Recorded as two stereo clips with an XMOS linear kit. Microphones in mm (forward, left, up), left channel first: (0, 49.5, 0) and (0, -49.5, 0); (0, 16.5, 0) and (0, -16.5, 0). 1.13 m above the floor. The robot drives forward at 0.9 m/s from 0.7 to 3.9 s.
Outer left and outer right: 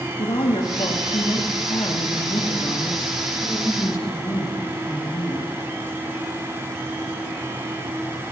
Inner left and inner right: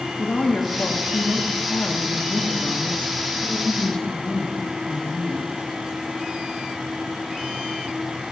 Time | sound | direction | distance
0.2 | a woman speaking | 70° left (ahead or behind) | 2 m